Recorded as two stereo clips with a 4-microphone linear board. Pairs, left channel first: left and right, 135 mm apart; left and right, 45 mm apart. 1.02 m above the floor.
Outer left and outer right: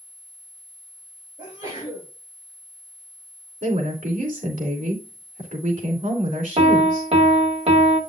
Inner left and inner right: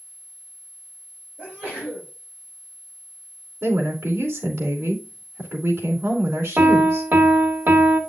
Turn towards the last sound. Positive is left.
turn(degrees=-50)  # may be behind; listen again after turning